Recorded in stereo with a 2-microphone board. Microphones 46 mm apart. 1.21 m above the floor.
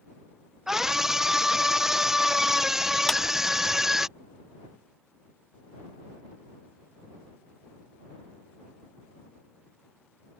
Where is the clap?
10° left (ahead or behind).